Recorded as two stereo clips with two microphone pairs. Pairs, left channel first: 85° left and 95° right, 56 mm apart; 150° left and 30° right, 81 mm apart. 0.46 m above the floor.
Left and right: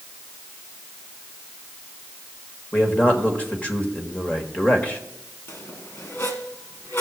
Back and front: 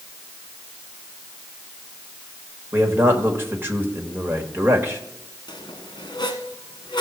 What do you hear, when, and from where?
2.7 s a man speaking: 25° left, 1.6 m
5.5 s a squeak: 125° left, 1.6 m